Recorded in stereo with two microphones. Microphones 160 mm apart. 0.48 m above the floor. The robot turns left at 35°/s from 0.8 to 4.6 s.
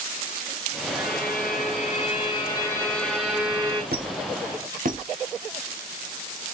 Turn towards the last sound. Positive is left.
turn(degrees=-55)  # may be behind; listen again after turning